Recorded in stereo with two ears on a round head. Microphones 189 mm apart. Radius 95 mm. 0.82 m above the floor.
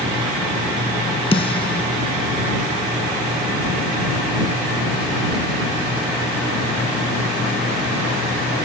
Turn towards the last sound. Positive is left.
turn(degrees=25)  # may be behind; listen again after turning